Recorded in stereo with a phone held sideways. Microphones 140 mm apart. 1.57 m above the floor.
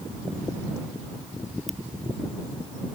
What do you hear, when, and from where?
1.7 s a ringtone: centre (ahead or behind)